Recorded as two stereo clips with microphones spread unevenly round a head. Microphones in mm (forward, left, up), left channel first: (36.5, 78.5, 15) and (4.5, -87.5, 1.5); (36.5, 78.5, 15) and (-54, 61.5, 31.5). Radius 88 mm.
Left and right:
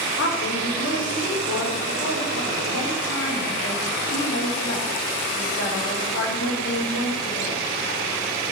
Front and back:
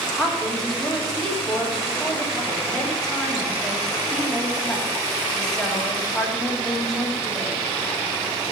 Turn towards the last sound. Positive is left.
turn(degrees=95)